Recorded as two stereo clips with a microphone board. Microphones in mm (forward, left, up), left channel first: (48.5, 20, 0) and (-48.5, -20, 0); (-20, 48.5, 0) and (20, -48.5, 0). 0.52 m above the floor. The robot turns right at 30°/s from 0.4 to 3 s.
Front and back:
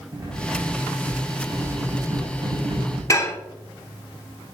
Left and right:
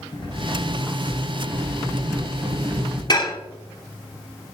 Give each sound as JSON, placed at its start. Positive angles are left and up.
{"t": 0.1, "sound": "cutlery clinking", "azimuth_deg": 150, "distance_m": 2.0}
{"t": 3.1, "sound": "dishes clattering", "azimuth_deg": 75, "distance_m": 0.8}